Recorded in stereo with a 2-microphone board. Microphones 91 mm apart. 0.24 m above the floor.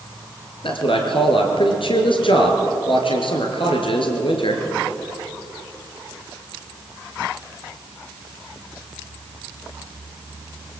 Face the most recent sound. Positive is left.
turn(degrees=70)  # may be behind; listen again after turning